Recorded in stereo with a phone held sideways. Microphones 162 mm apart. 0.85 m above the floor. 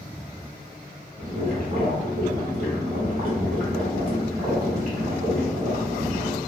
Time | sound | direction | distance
1.2 | boiling | 65° right (ahead or behind) | 1.3 m